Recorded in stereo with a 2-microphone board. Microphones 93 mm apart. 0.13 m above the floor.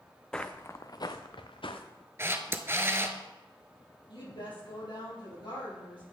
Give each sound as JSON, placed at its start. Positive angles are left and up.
{"t": 0.3, "sound": "footsteps", "side_deg": 10, "distance_m": 0.5}
{"t": 2.2, "sound": "a camera shutter", "side_deg": -30, "distance_m": 0.5}
{"t": 4.1, "sound": "a woman speaking", "side_deg": 65, "distance_m": 3.5}